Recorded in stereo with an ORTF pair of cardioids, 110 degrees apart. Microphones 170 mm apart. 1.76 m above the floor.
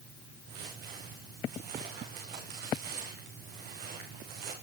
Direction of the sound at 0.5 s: 70° right.